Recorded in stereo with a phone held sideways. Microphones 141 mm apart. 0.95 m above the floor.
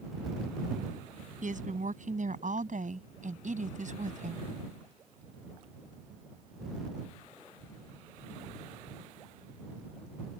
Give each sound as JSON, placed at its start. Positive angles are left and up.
{"t": 1.4, "sound": "a woman speaking", "side_deg": -65}